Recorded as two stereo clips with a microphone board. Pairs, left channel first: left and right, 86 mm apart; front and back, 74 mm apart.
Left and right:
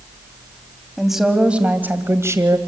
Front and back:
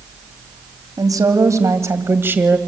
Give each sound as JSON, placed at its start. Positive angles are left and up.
{"t": 1.0, "sound": "a woman speaking", "azimuth_deg": 180, "distance_m": 2.0}